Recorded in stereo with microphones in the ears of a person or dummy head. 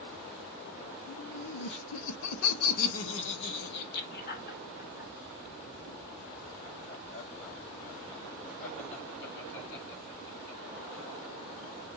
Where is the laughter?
40° left (ahead or behind), 0.8 m.